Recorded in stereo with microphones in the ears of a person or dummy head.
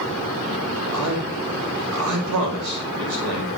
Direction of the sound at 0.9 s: 80° right.